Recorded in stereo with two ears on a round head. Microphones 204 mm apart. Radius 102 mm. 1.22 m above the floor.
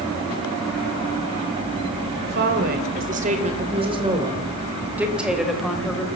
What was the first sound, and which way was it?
A woman speaking, 50° right (ahead or behind).